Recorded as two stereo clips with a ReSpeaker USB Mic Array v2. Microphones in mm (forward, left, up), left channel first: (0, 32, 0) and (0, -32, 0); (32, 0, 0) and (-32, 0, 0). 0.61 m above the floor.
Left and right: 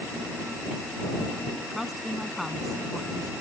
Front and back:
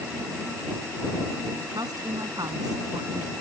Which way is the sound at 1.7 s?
Straight behind.